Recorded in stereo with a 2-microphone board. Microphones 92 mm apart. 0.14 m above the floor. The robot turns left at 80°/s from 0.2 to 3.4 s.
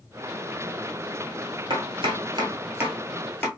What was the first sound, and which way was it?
Chopping, 55° right (ahead or behind).